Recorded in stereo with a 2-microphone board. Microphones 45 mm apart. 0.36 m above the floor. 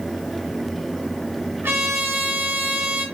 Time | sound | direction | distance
1.6 | a trumpet | 65° right (ahead or behind) | 2.5 m